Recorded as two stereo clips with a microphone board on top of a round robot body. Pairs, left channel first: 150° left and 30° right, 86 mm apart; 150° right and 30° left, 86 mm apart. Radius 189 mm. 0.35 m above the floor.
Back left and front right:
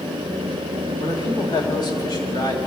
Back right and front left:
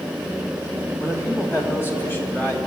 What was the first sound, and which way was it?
A man speaking, 155° left.